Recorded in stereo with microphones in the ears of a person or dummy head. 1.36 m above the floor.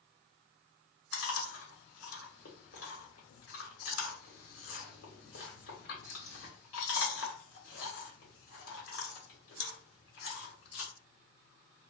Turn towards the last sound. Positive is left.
turn(degrees=70)  # may be behind; listen again after turning